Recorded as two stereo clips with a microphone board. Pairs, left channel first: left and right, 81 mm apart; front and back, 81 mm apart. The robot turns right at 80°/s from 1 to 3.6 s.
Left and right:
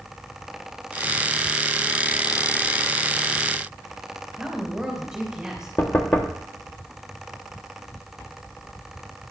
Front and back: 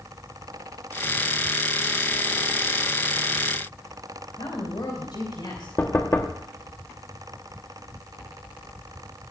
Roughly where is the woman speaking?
Ahead.